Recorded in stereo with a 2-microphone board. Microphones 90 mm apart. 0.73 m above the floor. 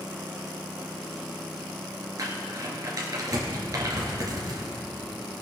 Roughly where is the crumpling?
Right.